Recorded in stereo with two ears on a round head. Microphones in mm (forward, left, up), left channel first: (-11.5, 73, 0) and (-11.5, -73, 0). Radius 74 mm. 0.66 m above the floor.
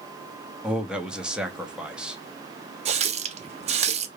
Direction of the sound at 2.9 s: 40° right (ahead or behind).